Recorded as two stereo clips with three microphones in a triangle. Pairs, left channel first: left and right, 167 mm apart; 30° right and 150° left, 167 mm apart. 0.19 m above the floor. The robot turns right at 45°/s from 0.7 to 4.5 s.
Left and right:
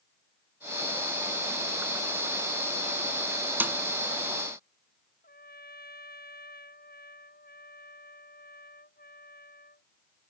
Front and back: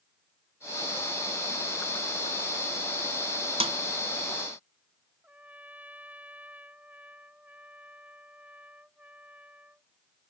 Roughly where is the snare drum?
Behind.